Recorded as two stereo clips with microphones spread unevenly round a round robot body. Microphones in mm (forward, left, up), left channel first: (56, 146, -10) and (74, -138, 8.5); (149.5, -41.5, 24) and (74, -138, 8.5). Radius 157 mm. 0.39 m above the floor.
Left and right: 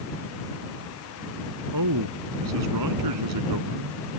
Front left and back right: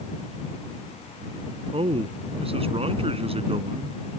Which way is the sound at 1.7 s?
95° right.